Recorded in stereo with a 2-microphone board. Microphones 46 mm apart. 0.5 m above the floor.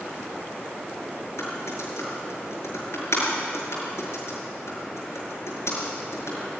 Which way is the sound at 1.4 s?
80° left.